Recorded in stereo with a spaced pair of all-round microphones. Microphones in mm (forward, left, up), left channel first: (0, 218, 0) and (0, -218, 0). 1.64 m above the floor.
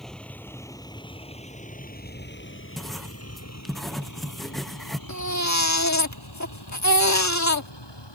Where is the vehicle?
Centre (ahead or behind); by 8.2 s 70° left (ahead or behind).